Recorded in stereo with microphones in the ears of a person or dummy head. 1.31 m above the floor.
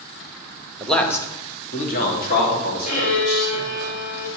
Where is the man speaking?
5° right (ahead or behind), 1.2 m; by 3.9 s 70° left (ahead or behind), 4.5 m.